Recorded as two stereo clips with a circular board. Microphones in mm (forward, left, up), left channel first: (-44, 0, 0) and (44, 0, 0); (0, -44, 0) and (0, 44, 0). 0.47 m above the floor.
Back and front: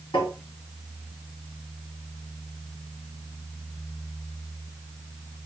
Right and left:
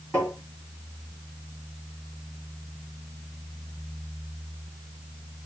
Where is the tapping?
160° right, 3 m.